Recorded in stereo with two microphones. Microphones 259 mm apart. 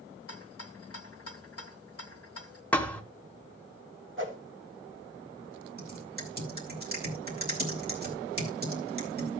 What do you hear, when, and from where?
0.3 s a rattle: 65° left (ahead or behind), 1.0 m
2.7 s a thud: 5° left (ahead or behind), 1.0 m
4.2 s a whoosh: 50° right (ahead or behind), 1.9 m
5.8 s typing on a keyboard: 35° right (ahead or behind), 2.5 m